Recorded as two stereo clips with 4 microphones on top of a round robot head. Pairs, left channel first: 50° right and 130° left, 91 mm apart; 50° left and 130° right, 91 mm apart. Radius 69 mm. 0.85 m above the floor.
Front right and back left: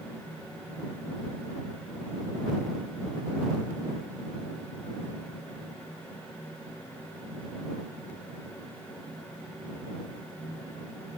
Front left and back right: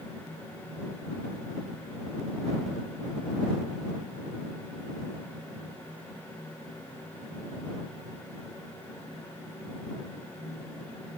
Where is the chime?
I don't hear a chime.